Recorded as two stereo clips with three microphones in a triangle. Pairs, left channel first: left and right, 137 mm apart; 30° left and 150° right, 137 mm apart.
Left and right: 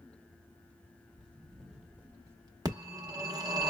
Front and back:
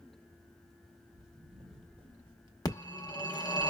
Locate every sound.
1.1 s footsteps: 175° left, 2 m; by 2.5 s 125° right, 1.2 m
2.6 s a phone ringing: 30° right, 0.8 m